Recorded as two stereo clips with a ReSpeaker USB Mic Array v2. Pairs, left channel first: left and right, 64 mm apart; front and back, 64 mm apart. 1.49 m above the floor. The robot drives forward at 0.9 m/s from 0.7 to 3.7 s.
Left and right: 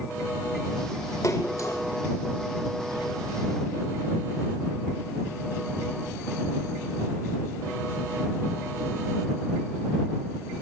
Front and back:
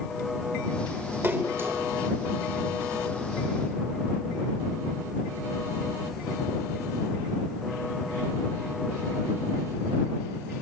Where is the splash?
125° left, 3 m; by 1.8 s 135° left, 3.5 m.